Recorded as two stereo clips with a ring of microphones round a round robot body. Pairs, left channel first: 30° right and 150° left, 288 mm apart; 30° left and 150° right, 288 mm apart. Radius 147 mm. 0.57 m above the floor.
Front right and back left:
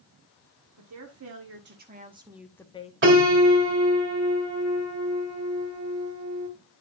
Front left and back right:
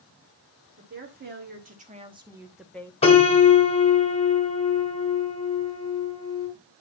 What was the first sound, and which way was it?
A woman speaking, 165° left.